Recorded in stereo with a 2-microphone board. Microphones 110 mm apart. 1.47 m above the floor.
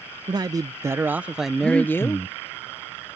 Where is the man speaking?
40° right (ahead or behind); by 2.3 s 35° left (ahead or behind).